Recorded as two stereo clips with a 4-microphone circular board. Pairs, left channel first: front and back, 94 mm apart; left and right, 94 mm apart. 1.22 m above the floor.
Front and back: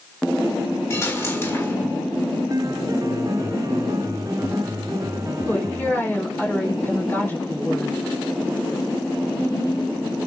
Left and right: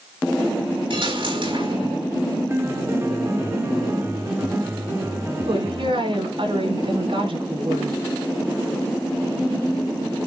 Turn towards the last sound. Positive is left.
turn(degrees=-75)